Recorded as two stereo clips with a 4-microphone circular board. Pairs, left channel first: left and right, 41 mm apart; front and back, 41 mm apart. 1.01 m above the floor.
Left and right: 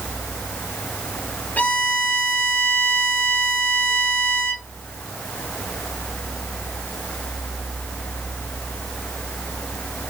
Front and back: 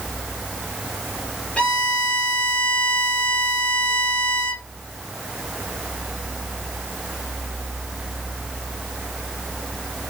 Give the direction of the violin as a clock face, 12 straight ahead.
10 o'clock.